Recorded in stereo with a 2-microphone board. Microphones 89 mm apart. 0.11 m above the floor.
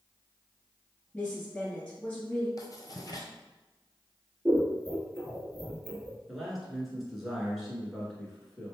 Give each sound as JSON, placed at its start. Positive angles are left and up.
{"t": 1.1, "sound": "a woman speaking", "side_deg": 10, "distance_m": 1.8}
{"t": 2.6, "sound": "writing", "side_deg": 45, "distance_m": 0.9}
{"t": 4.5, "sound": "scissors", "side_deg": -15, "distance_m": 1.4}
{"t": 6.3, "sound": "a man speaking", "side_deg": 0, "distance_m": 1.5}